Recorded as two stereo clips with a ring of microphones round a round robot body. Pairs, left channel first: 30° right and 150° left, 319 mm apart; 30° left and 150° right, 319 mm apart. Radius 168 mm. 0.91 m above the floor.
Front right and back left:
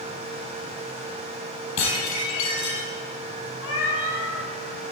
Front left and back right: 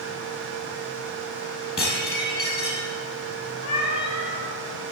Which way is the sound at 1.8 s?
45° right.